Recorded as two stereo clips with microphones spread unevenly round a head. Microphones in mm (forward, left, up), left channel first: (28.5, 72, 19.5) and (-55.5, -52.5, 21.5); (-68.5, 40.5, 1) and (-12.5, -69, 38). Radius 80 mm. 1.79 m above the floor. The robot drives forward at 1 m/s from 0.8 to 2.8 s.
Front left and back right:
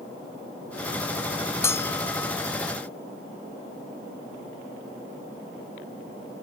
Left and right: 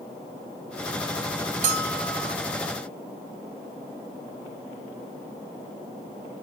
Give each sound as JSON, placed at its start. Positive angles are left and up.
{"t": 1.6, "sound": "a bell", "azimuth_deg": -20}